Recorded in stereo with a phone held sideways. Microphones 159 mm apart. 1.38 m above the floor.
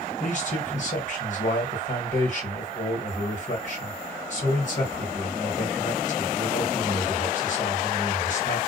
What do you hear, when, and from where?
0.2 s a man speaking: 50° left (ahead or behind), 1.7 m